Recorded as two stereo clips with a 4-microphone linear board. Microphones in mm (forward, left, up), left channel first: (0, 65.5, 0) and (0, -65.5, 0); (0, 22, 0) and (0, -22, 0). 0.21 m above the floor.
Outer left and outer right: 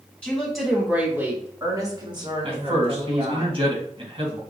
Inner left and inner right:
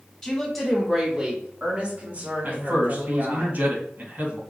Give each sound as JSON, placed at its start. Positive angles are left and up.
{"t": 0.2, "sound": "a woman speaking", "side_deg": 10, "distance_m": 1.9}
{"t": 2.4, "sound": "a man speaking", "side_deg": -50, "distance_m": 2.0}